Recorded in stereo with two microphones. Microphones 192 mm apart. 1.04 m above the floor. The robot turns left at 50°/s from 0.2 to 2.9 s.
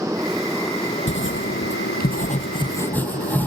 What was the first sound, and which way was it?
A motorcycle, 170° right.